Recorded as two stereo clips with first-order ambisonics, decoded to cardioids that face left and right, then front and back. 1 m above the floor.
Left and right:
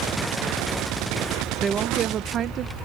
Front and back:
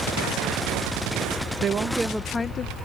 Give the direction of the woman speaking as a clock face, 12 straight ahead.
5 o'clock.